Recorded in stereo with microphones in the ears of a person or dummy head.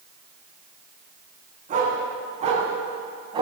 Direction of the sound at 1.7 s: 50° right (ahead or behind).